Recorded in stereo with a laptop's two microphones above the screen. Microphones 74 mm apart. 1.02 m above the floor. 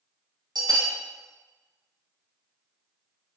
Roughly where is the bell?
Right.